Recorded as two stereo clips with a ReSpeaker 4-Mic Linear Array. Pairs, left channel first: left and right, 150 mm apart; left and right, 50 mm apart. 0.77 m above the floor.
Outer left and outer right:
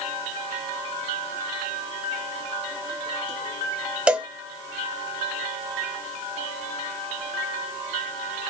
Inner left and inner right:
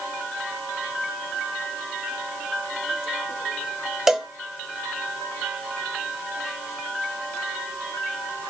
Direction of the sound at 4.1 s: 10° right (ahead or behind).